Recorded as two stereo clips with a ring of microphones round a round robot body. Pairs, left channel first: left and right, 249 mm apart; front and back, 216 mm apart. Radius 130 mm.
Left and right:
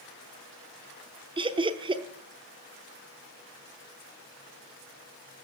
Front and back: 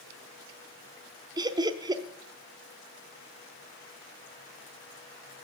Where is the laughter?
135° right, 0.8 m.